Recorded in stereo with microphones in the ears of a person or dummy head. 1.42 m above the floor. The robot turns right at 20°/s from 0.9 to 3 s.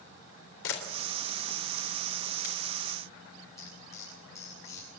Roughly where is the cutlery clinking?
Centre.